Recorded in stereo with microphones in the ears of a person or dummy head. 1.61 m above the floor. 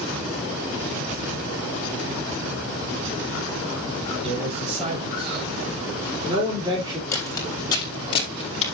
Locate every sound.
4.2 s a man speaking: 35° right (ahead or behind), 6.5 m; by 7.0 s 20° right (ahead or behind), 3 m
7.1 s footsteps: 15° left (ahead or behind), 5 m; by 8.6 s 35° left (ahead or behind), 4 m